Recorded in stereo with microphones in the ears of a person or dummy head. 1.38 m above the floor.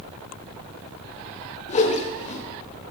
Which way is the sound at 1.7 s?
40° left (ahead or behind).